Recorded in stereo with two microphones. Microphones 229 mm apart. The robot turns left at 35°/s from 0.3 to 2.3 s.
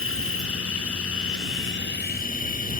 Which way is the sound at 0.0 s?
110° left.